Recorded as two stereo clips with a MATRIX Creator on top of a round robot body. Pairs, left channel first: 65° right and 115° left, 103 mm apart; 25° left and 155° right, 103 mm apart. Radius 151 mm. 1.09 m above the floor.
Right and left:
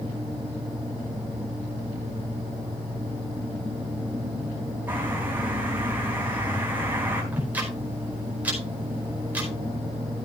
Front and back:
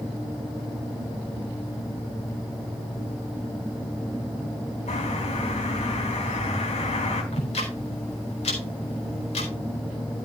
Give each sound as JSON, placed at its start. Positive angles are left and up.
{"t": 4.9, "sound": "a bird", "azimuth_deg": 40, "distance_m": 4.0}
{"t": 7.3, "sound": "ticking", "azimuth_deg": 40, "distance_m": 4.5}